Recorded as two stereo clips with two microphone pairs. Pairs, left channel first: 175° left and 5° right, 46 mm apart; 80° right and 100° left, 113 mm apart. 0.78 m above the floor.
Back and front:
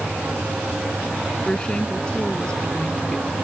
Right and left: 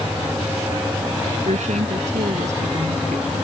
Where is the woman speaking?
105° left.